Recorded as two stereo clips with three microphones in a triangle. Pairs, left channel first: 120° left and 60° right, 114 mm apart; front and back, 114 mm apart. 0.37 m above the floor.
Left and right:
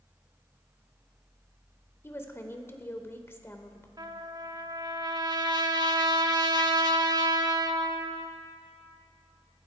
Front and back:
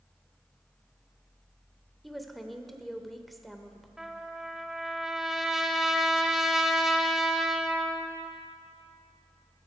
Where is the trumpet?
95° right, 0.9 m.